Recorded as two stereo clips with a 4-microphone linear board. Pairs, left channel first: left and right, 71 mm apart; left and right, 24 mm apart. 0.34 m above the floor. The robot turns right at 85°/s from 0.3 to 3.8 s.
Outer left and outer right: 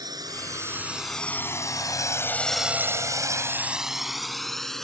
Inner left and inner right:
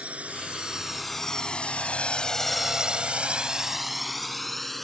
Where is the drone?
70° right (ahead or behind); by 4.8 s 5° left (ahead or behind).